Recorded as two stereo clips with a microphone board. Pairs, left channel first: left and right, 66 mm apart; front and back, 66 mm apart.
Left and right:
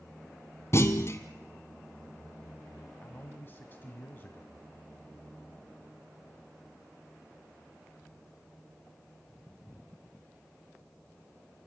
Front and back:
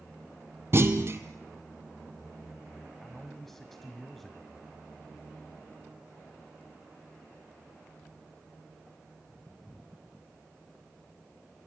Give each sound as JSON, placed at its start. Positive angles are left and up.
{"t": 0.7, "sound": "a clunk", "azimuth_deg": 135, "distance_m": 1.1}
{"t": 3.0, "sound": "a man speaking", "azimuth_deg": 80, "distance_m": 1.3}